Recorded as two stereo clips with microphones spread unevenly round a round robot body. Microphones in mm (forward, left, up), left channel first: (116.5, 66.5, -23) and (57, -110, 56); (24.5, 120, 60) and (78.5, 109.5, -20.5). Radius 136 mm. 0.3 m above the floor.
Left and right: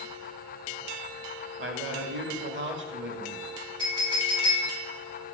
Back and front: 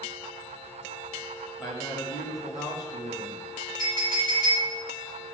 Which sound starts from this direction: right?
A man speaking, at 1.6 s.